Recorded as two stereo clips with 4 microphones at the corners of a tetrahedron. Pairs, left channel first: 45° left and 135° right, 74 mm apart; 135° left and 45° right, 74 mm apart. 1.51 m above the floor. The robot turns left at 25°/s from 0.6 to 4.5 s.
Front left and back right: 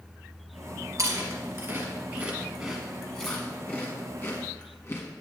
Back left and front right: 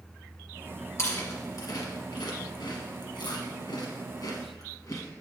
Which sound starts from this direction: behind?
Chewing, at 1.0 s.